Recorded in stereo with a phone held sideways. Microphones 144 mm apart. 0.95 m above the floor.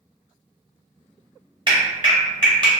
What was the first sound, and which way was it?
A clap, 30° right (ahead or behind).